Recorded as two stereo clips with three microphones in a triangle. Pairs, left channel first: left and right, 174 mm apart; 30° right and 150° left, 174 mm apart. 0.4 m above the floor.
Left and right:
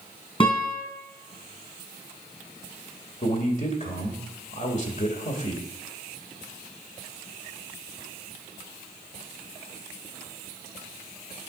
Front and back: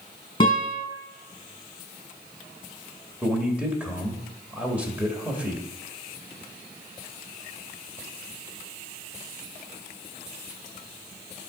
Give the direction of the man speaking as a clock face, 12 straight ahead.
10 o'clock.